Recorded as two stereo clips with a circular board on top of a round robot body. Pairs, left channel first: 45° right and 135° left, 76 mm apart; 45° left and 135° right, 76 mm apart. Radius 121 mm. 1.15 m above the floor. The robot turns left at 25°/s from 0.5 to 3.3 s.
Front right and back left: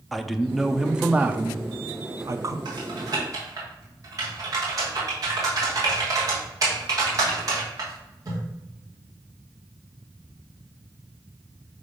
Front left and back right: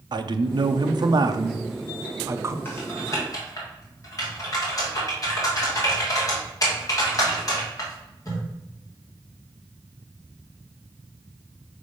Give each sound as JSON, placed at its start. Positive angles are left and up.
{"t": 0.1, "sound": "a man speaking", "azimuth_deg": -135, "distance_m": 0.7}
{"t": 2.6, "sound": "typing on a keyboard", "azimuth_deg": 105, "distance_m": 1.8}